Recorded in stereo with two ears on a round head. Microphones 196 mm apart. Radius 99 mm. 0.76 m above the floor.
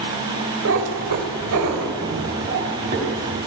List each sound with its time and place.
0.7 s a cat meowing: 70° right (ahead or behind), 1.3 m; by 3.4 s 40° right (ahead or behind), 2.5 m